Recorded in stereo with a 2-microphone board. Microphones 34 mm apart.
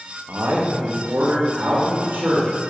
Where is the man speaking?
80° right, 1.6 m; by 2.5 s 70° right (ahead or behind), 3 m.